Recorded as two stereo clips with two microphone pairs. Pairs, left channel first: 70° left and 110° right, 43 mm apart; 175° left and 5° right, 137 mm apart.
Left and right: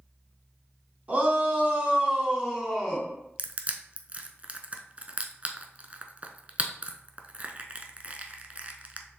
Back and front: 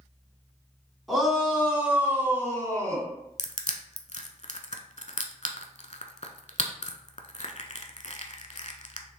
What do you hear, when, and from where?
1.1 s a shout: 95° right, 2.0 m; by 3.1 s 25° right, 1.8 m
3.4 s crushing: 165° right, 0.6 m